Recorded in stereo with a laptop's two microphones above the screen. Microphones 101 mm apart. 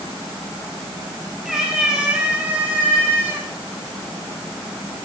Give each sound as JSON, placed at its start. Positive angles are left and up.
{"t": 1.4, "sound": "a cat meowing", "side_deg": -5, "distance_m": 5.0}